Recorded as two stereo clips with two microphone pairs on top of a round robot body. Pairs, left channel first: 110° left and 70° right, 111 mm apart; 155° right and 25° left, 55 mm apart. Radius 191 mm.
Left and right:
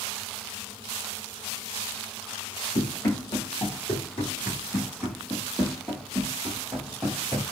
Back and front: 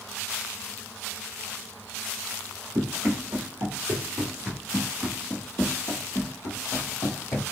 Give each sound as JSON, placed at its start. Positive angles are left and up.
{"t": 2.8, "sound": "running footsteps", "azimuth_deg": 55, "distance_m": 2.0}